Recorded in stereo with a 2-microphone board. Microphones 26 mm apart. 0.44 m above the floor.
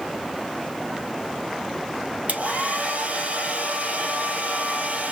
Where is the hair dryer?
80° right, 1.6 m.